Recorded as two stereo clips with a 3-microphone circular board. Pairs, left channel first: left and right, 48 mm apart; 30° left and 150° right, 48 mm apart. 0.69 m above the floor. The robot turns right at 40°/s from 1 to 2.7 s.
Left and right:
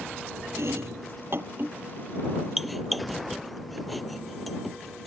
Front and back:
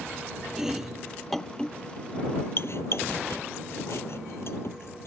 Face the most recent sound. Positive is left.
turn(degrees=0)